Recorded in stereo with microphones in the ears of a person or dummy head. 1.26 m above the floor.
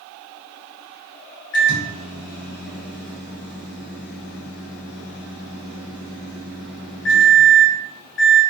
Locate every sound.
1.5 s a microwave: 70° left (ahead or behind), 0.8 m